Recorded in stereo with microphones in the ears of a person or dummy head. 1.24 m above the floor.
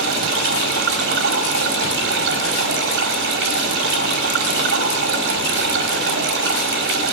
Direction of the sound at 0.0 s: 65° right (ahead or behind).